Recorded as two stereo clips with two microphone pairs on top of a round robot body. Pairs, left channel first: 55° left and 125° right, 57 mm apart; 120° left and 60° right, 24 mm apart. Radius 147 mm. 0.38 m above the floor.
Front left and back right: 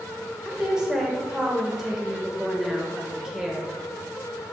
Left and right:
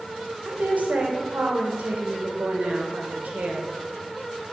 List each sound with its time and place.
0.5 s a woman speaking: 50° right, 1.6 m